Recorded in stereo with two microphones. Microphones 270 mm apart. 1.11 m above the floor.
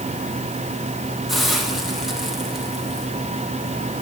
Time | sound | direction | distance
1.3 | a hiss | centre (ahead or behind) | 4.5 m